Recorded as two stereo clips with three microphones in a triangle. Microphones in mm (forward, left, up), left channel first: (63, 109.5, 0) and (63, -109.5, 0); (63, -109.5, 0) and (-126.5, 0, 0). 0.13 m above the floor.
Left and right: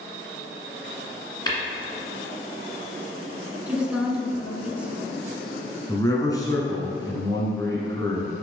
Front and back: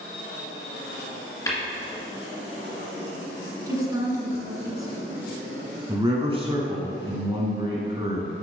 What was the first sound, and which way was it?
Tapping, 35° left.